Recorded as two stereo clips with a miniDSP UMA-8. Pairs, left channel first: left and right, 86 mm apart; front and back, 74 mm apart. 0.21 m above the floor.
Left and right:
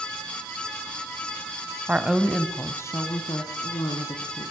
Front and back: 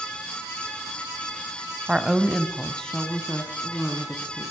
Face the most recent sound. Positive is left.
turn(degrees=70)